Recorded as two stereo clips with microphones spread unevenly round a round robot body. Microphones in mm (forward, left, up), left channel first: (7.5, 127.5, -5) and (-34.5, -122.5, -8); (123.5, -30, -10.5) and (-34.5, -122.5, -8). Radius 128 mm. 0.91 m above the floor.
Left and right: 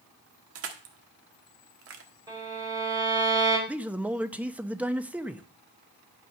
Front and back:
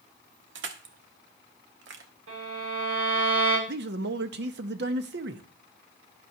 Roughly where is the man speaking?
Behind.